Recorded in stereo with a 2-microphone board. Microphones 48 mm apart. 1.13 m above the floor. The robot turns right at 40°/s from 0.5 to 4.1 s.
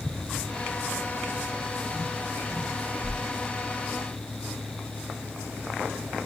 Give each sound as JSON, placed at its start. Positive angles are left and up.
{"t": 3.0, "sound": "a whoosh", "side_deg": -10, "distance_m": 1.2}